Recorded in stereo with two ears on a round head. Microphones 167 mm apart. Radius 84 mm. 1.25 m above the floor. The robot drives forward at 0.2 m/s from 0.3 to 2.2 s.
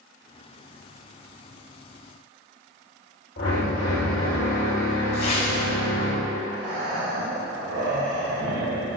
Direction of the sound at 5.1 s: 35° left (ahead or behind).